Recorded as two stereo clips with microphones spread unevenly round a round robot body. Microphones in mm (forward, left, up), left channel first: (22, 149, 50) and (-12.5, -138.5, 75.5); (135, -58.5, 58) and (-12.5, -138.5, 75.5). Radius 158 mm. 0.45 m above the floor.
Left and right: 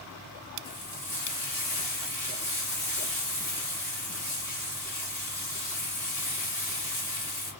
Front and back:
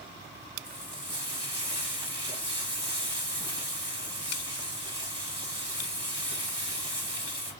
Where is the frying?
145° left, 2 m.